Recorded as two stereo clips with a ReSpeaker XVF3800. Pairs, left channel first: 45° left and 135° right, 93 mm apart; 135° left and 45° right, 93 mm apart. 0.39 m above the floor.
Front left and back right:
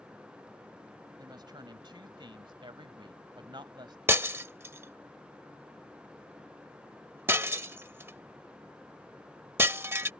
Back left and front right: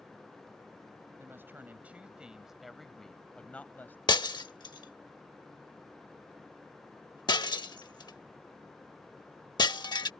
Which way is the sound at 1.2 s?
105° right.